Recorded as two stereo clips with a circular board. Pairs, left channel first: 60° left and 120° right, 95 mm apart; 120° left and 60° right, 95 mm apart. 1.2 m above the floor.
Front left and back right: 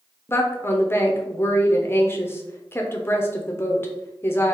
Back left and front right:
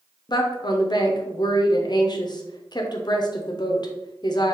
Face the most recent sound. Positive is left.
turn(degrees=115)